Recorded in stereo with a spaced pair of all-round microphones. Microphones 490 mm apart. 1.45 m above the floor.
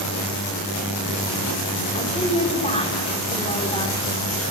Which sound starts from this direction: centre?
A woman speaking, at 1.9 s.